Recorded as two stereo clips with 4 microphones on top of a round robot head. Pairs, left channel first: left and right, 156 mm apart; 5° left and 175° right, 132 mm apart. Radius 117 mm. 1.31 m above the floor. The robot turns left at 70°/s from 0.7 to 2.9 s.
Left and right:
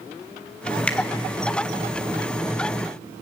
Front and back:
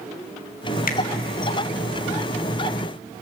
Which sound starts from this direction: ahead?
A finger snap, at 0.9 s.